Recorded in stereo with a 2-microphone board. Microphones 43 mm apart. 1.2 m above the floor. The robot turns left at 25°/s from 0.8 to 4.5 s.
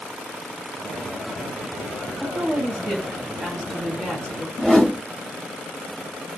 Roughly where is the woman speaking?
Behind right.